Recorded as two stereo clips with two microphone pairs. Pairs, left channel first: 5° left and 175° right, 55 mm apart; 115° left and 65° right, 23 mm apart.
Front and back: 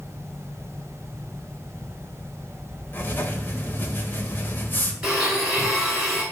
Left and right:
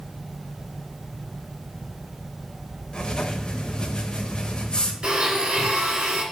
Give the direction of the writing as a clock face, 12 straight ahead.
10 o'clock.